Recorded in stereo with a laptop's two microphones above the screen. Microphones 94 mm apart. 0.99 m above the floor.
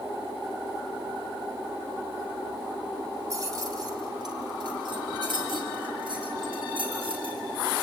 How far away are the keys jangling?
About 2 m.